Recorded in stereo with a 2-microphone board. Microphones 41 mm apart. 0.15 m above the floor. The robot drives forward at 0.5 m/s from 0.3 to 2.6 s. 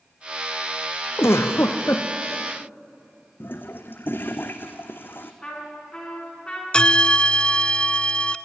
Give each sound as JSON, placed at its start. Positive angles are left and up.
{"t": 1.2, "sound": "a giggle", "side_deg": 80, "distance_m": 2.0}
{"t": 3.4, "sound": "a toilet flushing", "side_deg": 55, "distance_m": 1.5}
{"t": 5.4, "sound": "a trumpet", "side_deg": 20, "distance_m": 10.0}
{"t": 6.7, "sound": "a bell", "side_deg": 25, "distance_m": 0.6}